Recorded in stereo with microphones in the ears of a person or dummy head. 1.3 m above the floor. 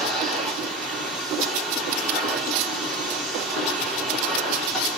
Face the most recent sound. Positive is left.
turn(degrees=0)  # may be behind; listen again after turning